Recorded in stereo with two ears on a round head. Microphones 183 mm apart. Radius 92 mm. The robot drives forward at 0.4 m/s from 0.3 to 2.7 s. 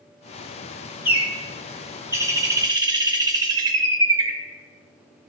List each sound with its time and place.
1.1 s a bird: 10° right (ahead or behind), 1.2 m; by 4.4 s 20° right (ahead or behind), 0.5 m